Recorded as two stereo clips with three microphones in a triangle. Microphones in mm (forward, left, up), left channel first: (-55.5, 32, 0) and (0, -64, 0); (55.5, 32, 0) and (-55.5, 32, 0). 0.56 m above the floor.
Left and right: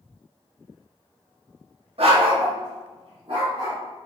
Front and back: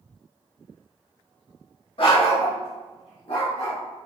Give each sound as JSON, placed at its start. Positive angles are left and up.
{"t": 2.0, "sound": "a dog barking", "azimuth_deg": -35, "distance_m": 0.6}